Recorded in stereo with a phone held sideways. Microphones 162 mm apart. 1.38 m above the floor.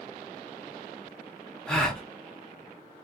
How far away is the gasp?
About 0.8 m.